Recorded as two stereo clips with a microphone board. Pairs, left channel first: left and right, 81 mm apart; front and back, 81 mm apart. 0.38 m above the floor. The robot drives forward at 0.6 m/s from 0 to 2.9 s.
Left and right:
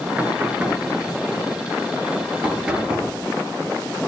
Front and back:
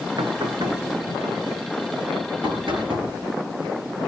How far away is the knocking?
About 3 m.